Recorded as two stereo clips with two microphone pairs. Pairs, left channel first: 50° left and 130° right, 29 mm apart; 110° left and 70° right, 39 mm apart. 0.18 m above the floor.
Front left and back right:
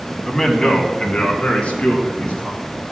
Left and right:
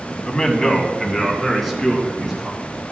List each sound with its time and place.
0.3 s a man speaking: 85° left, 1.5 m; by 2.6 s 10° left, 3.5 m